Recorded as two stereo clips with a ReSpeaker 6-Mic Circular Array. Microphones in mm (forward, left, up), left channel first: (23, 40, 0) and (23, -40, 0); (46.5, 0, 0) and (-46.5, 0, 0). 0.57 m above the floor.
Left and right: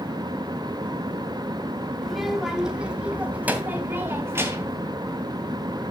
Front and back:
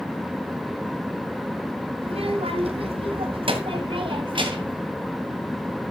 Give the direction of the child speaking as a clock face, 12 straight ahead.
6 o'clock.